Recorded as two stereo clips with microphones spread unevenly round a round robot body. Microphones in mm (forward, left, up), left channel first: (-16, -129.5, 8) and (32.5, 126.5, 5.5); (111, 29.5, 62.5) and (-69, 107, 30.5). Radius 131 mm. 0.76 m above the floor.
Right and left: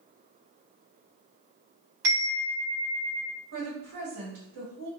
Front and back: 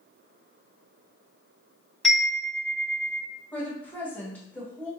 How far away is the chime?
About 1.4 m.